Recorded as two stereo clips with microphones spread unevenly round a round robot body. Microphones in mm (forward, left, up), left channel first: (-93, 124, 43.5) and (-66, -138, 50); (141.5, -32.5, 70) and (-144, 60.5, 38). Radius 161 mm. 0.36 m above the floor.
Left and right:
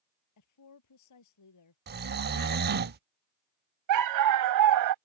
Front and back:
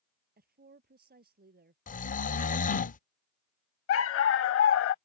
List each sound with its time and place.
0.4 s a woman speaking: 100° left
1.9 s snoring: 75° right
3.9 s a dog barking: 70° right